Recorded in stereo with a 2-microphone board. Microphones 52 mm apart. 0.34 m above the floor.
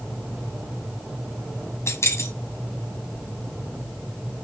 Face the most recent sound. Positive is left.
turn(degrees=65)  # may be behind; listen again after turning